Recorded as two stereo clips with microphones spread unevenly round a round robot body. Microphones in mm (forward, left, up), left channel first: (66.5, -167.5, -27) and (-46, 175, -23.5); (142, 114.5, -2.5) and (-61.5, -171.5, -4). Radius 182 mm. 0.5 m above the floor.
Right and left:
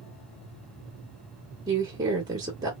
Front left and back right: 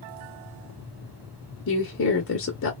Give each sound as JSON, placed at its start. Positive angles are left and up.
{"t": 1.7, "sound": "a woman speaking", "azimuth_deg": 35, "distance_m": 0.9}